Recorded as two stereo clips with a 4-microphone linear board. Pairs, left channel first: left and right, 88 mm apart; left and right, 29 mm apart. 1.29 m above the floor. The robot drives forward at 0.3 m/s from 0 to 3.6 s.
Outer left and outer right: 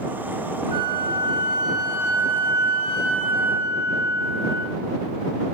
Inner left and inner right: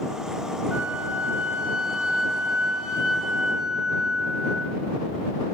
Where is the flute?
55° right (ahead or behind), 0.6 m; by 4.8 s 25° right (ahead or behind), 1.2 m.